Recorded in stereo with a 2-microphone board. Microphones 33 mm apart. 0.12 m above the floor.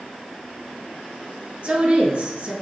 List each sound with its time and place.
1.6 s a woman speaking: 45° right (ahead or behind), 2.5 m